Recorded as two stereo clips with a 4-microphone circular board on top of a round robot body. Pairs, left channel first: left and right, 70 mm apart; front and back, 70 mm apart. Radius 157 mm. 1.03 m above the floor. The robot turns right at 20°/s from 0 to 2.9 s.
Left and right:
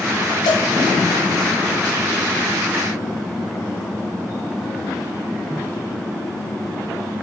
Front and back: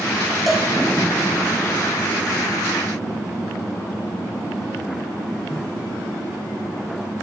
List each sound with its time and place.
0.5 s a cowbell: 90° left, 3.5 m; by 0.7 s 95° left, 3.5 m